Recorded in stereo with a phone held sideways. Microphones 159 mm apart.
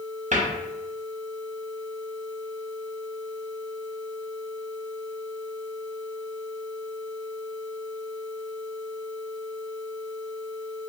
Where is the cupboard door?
55° right (ahead or behind), 0.6 m.